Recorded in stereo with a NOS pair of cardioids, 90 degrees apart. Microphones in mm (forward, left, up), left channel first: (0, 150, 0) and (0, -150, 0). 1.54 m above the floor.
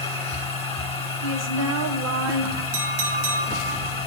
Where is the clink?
70° right, 1.4 m.